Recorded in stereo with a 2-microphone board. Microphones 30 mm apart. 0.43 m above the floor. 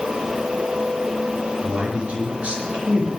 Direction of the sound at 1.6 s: 40° right (ahead or behind).